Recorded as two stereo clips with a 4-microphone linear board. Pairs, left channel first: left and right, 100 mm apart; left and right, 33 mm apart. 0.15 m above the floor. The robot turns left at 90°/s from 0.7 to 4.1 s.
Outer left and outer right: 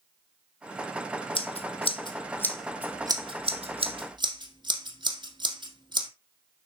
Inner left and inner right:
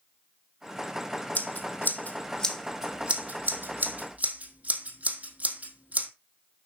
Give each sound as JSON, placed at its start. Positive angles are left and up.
{"t": 1.4, "sound": "scissors", "side_deg": 60, "distance_m": 1.9}